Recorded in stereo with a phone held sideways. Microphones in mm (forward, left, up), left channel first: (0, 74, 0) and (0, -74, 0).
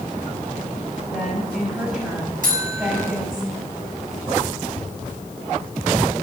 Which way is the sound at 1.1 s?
5° right (ahead or behind).